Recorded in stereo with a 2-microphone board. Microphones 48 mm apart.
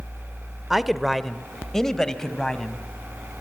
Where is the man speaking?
10° right (ahead or behind), 0.8 m; by 2.8 s 15° left (ahead or behind), 2 m.